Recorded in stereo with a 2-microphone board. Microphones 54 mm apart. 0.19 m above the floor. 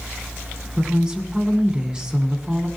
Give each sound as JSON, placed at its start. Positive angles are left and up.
{"t": 0.8, "sound": "a woman speaking", "side_deg": -15, "distance_m": 1.8}